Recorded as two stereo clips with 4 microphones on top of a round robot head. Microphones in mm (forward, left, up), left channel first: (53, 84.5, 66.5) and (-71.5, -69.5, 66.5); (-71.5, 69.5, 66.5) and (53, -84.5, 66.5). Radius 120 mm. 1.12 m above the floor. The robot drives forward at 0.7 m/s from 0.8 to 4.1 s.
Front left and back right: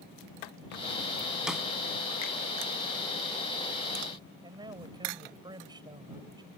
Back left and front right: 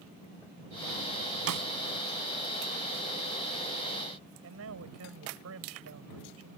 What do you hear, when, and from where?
1.5 s a snare drum: 40° right; by 1.7 s 45° right
4.4 s a man speaking: 60° right